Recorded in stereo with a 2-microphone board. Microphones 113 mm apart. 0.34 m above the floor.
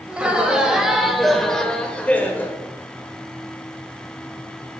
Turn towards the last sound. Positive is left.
turn(degrees=20)  # may be behind; listen again after turning